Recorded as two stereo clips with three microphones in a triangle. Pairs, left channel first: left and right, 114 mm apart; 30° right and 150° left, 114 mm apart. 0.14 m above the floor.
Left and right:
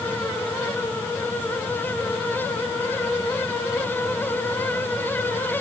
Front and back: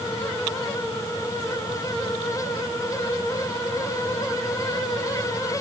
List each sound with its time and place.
Only background noise.